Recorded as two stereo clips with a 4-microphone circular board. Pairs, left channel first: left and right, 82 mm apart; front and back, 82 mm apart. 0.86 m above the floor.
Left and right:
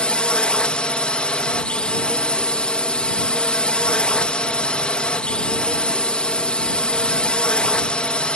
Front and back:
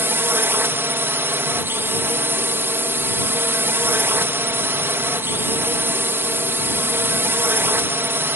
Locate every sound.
0.0 s a drone: 155° left